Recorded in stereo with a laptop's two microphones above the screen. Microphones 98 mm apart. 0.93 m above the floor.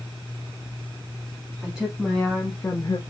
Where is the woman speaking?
10° right (ahead or behind), 2 m; by 3.0 s 45° left (ahead or behind), 1.1 m.